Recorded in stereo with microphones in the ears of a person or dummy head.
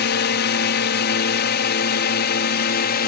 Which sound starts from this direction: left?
A drone, at 0.0 s.